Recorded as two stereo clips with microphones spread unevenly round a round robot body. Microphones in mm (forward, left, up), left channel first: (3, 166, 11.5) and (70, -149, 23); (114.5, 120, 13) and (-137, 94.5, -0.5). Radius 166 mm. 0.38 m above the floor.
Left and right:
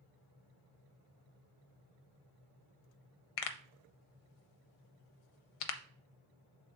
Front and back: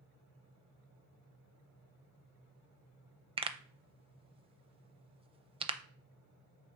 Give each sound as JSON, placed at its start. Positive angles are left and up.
{"t": 3.4, "sound": "a pop", "azimuth_deg": 115, "distance_m": 0.5}